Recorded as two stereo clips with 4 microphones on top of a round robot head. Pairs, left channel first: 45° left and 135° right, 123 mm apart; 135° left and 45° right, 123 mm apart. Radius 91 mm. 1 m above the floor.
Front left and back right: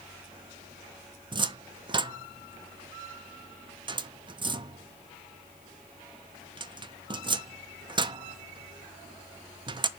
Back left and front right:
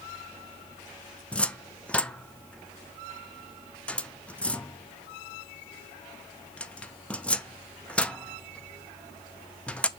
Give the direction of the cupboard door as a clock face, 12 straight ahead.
5 o'clock.